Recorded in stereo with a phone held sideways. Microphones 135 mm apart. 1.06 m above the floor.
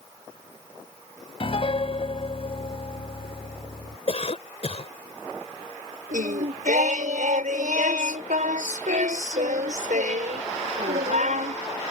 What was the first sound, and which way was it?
A piano, 45° left (ahead or behind).